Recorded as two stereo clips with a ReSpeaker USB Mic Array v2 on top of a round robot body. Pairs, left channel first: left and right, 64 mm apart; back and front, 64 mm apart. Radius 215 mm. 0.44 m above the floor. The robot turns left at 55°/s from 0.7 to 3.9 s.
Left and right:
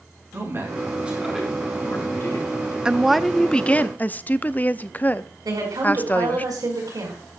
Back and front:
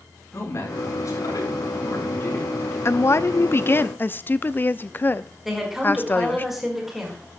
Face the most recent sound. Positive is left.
turn(degrees=-85)